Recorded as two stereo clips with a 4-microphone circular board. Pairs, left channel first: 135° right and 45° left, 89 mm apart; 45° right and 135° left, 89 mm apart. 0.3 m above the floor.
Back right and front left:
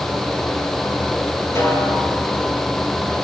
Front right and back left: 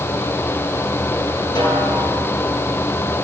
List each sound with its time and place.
1.6 s a snare drum: 75° right, 5.5 m